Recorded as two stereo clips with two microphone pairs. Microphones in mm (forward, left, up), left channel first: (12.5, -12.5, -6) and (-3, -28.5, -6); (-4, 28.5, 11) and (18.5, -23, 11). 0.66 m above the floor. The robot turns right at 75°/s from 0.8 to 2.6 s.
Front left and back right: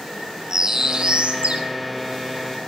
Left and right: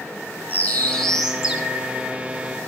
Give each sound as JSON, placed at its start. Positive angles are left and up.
{"t": 0.5, "sound": "a bird", "azimuth_deg": 175, "distance_m": 3.0}